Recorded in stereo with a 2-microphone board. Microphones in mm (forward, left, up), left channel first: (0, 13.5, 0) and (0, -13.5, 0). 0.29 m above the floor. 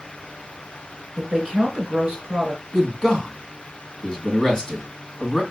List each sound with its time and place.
1.2 s a woman speaking: 30° right (ahead or behind), 3.5 m
2.7 s a man speaking: 20° left (ahead or behind), 2.0 m